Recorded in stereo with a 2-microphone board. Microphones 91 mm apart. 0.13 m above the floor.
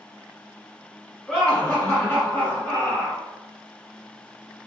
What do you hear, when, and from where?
1.3 s laughter: 5° left (ahead or behind), 1.8 m; by 3.2 s 35° left (ahead or behind), 2 m